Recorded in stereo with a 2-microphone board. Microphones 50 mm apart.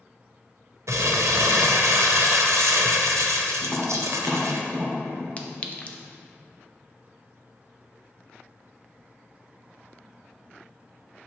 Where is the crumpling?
85° right, 0.8 m.